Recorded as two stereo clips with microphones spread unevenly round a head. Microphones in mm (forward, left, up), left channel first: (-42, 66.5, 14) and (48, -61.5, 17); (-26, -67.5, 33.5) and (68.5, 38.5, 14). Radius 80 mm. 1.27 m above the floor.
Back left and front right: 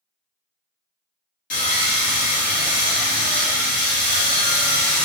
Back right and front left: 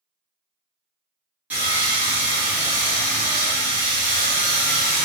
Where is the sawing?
135° left, 1.0 m.